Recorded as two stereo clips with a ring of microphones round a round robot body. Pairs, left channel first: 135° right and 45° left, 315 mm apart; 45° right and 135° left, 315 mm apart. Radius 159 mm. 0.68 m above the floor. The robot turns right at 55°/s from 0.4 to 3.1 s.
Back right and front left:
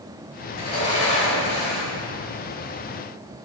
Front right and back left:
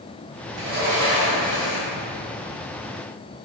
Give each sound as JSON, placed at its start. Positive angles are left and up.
{"t": 0.5, "sound": "a sliding door", "azimuth_deg": 175, "distance_m": 1.6}